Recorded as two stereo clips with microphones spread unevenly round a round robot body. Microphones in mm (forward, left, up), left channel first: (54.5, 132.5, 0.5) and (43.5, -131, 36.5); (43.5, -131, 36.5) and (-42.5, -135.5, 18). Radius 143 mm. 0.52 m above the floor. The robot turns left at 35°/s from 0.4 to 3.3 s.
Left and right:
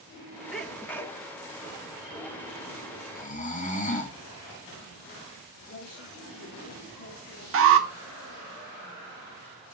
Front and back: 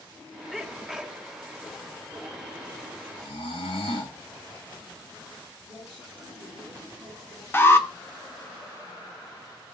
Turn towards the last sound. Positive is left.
turn(degrees=-65)